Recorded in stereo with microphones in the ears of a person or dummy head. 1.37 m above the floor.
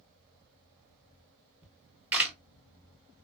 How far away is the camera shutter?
About 0.8 m.